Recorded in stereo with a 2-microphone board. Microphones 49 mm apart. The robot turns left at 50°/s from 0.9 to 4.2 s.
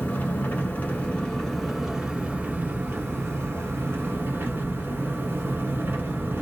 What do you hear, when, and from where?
0.0 s an engine running: 35° left, 1.1 m; by 6.4 s 130° right, 1.1 m